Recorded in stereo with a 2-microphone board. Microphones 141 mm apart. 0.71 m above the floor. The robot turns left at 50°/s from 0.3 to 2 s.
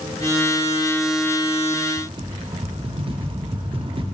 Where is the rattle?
40° right (ahead or behind), 0.6 m.